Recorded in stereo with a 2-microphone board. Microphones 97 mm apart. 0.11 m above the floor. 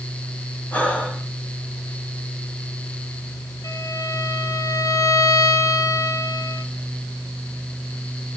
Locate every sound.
0.7 s breathing: 15° left (ahead or behind), 7 m
3.6 s a violin: 35° left (ahead or behind), 2.0 m